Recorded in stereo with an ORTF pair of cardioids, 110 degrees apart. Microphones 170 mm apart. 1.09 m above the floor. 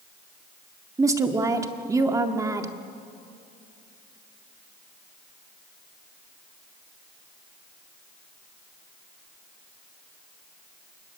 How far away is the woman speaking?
About 2.0 m.